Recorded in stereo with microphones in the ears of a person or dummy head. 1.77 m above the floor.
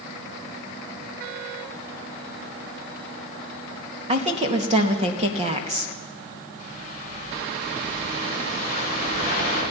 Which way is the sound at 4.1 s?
35° right (ahead or behind).